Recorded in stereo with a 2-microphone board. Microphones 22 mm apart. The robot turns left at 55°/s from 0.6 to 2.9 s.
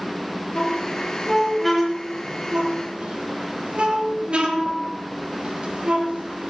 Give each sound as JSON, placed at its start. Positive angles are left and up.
{"t": 0.6, "sound": "a squeak", "side_deg": 65, "distance_m": 4.5}